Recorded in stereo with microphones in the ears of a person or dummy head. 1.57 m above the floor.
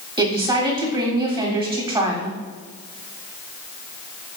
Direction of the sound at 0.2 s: 15° right (ahead or behind).